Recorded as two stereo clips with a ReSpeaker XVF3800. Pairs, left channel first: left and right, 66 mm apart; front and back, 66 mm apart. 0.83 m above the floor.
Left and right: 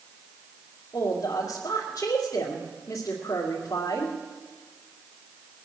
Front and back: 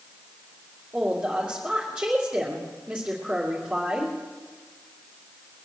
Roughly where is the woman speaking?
Left.